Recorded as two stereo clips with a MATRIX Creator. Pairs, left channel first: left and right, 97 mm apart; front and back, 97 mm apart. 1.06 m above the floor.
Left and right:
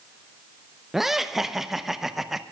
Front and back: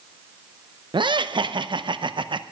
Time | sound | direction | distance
0.9 | laughter | 175° right | 0.7 m